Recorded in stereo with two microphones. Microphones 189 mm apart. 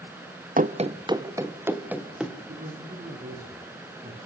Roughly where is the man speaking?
Right.